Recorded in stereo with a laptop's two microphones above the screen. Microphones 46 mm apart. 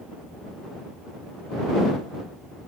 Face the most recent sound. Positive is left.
No sound to turn to.